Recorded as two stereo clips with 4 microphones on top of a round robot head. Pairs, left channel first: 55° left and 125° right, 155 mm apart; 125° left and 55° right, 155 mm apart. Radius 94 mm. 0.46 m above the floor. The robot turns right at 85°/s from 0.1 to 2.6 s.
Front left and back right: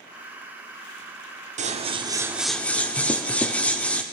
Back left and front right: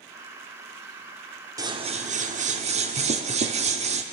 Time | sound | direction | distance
1.6 | scissors | 115° right | 0.8 m